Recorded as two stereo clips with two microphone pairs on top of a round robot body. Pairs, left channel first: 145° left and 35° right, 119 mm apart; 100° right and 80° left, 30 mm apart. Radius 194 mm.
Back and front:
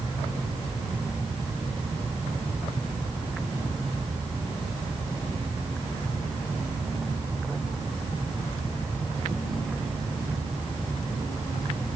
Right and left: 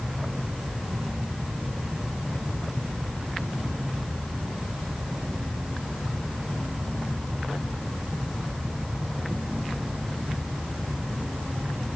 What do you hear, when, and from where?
Only background noise.